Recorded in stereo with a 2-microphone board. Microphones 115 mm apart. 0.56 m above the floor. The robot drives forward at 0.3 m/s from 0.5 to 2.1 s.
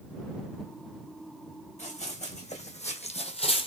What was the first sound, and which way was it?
Running footsteps, 70° left (ahead or behind).